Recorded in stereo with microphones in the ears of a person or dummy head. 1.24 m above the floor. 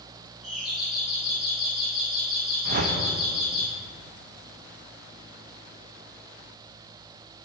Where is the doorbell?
5° right (ahead or behind), 2.5 m.